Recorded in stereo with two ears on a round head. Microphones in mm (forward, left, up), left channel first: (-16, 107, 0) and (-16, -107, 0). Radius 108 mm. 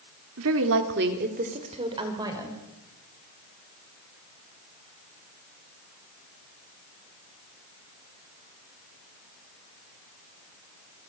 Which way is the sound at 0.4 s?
65° right (ahead or behind).